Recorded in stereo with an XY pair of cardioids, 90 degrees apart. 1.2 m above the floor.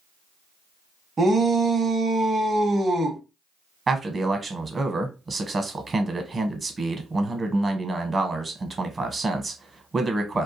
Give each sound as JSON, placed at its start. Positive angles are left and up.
{"t": 1.2, "sound": "a shout", "azimuth_deg": -40, "distance_m": 0.8}
{"t": 3.9, "sound": "a man speaking", "azimuth_deg": -35, "distance_m": 0.9}